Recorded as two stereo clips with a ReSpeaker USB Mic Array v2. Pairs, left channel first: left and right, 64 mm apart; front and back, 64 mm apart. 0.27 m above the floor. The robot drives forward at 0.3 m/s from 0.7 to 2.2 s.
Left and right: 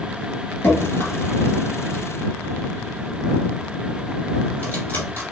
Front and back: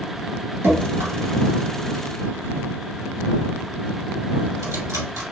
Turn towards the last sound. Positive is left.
turn(degrees=145)